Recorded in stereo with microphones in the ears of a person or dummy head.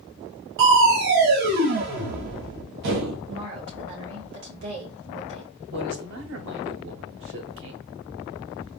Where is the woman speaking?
70° right (ahead or behind), 2 m.